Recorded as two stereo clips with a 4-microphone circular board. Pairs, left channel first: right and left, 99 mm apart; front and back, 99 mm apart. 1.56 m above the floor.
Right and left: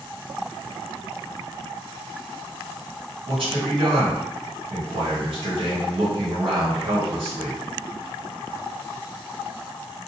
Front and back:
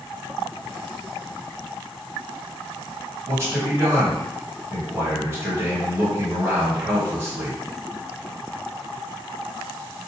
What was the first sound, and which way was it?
A man speaking, 115° left.